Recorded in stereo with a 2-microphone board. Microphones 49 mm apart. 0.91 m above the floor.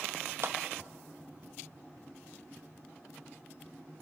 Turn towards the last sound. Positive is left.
turn(degrees=-60)  # may be behind; listen again after turning